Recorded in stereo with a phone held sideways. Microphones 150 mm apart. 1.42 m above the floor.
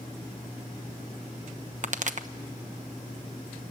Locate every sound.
1.8 s a pop: 55° right (ahead or behind), 1.0 m